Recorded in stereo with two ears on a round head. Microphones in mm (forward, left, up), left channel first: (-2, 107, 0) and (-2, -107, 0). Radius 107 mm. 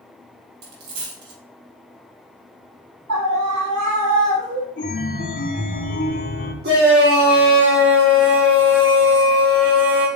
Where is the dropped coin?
85° right, 4 m.